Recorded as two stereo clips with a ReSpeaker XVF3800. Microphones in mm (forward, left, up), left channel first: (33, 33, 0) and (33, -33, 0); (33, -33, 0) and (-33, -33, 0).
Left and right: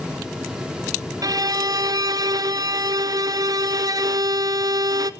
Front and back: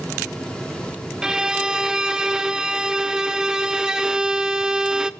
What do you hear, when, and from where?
1.2 s a violin: 100° right, 0.7 m